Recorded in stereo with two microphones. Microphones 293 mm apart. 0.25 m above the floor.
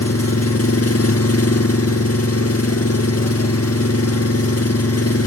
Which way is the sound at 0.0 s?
55° left (ahead or behind).